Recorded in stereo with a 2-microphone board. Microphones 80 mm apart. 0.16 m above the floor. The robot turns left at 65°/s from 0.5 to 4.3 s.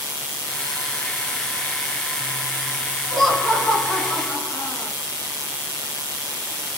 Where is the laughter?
Straight behind, 1.6 m; by 4.9 s 105° left, 1.6 m.